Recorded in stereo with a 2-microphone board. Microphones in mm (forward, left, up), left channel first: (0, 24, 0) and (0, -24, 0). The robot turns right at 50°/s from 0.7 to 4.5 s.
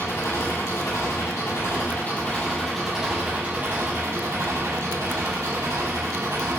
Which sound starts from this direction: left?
An engine running, at 0.0 s.